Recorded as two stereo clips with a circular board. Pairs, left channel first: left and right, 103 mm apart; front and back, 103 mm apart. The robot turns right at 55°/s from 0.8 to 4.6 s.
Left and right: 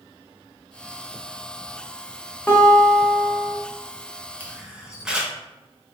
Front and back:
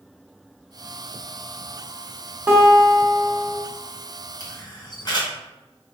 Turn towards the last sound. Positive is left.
turn(degrees=-10)